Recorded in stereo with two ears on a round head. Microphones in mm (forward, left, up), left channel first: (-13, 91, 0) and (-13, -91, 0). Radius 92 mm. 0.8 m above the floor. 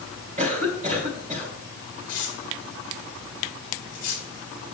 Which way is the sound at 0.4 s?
35° right (ahead or behind).